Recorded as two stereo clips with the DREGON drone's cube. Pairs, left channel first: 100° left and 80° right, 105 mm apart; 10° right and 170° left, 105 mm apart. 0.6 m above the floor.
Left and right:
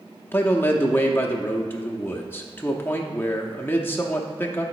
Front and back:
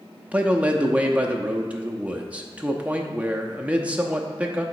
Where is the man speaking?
115° left, 0.6 m.